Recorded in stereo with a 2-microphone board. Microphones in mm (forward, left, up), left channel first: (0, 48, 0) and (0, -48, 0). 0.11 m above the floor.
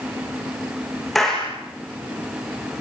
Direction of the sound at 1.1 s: Centre (ahead or behind).